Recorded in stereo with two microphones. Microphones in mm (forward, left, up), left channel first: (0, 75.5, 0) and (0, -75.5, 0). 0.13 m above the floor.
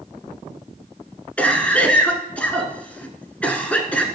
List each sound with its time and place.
1.4 s a cough: 10° left (ahead or behind), 1.2 m